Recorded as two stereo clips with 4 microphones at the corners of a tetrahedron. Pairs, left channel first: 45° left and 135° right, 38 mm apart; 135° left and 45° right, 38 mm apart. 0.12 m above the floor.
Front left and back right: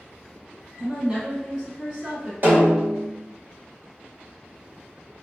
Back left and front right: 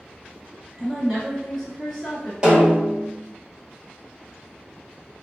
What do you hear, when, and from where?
0.8 s a woman speaking: 165° right, 1.1 m
2.4 s a snare drum: 105° right, 1.3 m